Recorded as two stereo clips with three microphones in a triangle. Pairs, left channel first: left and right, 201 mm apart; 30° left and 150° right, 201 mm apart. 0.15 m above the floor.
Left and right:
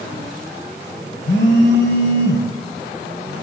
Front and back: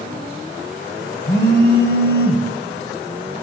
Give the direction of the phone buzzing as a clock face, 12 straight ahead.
10 o'clock.